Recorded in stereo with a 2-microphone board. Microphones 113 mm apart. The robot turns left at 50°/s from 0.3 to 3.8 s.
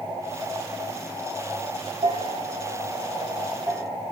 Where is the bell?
70° right (ahead or behind), 1.5 m; by 4.0 s 5° right (ahead or behind), 1.5 m.